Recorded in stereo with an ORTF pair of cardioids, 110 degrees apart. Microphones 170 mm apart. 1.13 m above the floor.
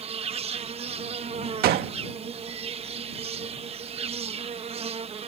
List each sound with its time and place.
0.0 s an insect: 35° right
1.6 s a gunshot: 65° right